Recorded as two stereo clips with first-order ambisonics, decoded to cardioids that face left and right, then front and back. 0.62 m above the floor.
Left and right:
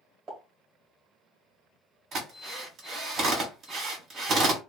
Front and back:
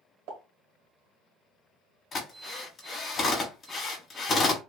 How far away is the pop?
About 1.4 m.